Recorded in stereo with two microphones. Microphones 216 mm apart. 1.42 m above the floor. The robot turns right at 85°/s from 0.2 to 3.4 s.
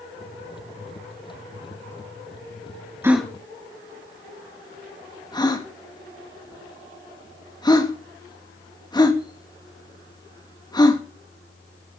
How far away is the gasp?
About 1.9 m.